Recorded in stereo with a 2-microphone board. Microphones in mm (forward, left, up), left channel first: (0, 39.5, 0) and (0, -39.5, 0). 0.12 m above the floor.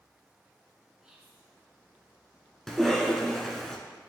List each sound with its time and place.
1.0 s whispering: 10° right (ahead or behind), 1.2 m
2.7 s a cough: 5° left (ahead or behind), 1.1 m